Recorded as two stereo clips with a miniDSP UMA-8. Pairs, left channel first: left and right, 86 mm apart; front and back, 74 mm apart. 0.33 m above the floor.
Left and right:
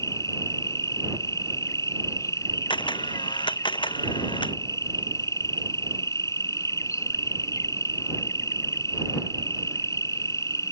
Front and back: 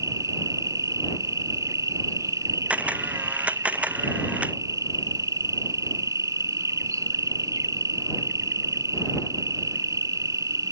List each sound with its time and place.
0.0 s an insect: 140° left
2.7 s a camera shutter: 110° left